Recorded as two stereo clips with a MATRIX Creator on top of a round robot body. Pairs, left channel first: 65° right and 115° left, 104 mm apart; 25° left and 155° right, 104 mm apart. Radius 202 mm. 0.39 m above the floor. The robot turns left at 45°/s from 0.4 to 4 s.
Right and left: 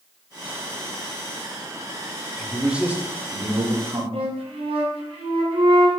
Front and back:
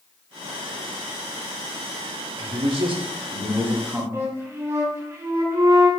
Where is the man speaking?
155° right, 1.8 m; by 4.0 s 135° left, 1.8 m.